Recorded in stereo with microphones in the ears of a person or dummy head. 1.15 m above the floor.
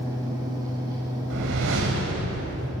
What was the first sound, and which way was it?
A fan, 20° right (ahead or behind).